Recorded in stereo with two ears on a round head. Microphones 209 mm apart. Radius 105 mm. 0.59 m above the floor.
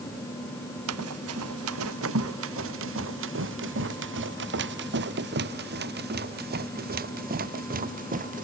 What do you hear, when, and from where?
0.9 s running footsteps: 75° right (ahead or behind); by 8.4 s 35° right (ahead or behind)